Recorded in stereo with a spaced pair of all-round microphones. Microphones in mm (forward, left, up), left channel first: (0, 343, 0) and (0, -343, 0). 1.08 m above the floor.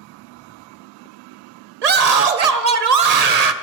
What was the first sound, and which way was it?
A scream, 65° right (ahead or behind).